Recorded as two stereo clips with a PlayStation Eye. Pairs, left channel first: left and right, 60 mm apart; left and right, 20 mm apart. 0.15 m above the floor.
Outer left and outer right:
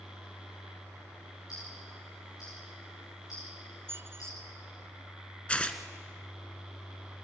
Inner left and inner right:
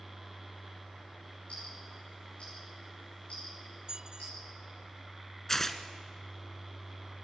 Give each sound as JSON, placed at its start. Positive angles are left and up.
{"t": 1.5, "sound": "ticking", "side_deg": 75, "distance_m": 8.0}
{"t": 3.9, "sound": "a squeak", "side_deg": -45, "distance_m": 0.5}
{"t": 5.5, "sound": "tearing paper", "side_deg": 20, "distance_m": 1.1}